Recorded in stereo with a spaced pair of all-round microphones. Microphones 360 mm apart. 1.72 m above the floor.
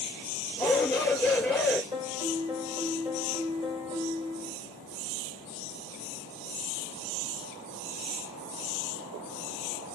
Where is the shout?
Centre (ahead or behind), 6 m.